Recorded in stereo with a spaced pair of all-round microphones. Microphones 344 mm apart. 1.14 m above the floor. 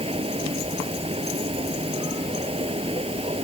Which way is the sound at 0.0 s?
15° right (ahead or behind).